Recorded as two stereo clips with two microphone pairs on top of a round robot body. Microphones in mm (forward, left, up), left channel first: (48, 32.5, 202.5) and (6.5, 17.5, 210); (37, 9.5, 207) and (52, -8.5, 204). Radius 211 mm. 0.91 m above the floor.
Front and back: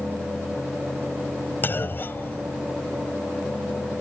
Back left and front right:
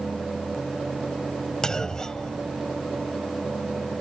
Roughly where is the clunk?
Ahead left.